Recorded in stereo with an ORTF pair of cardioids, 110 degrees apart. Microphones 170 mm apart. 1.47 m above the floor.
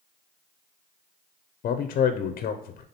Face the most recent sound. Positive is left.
turn(degrees=55)